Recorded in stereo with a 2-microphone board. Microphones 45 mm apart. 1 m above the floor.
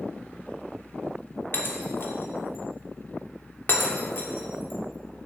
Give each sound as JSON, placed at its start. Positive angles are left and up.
{"t": 1.5, "sound": "breaking glass", "side_deg": 50, "distance_m": 1.4}